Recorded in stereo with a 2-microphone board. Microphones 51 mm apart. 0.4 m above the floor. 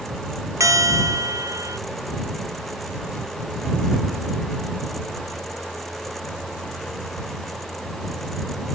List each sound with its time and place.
0.6 s a bell: 85° right